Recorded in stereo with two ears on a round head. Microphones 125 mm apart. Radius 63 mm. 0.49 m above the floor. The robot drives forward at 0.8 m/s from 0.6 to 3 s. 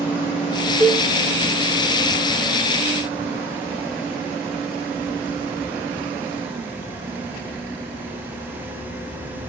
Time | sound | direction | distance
0.8 | a cowbell | 15° left (ahead or behind) | 1.1 m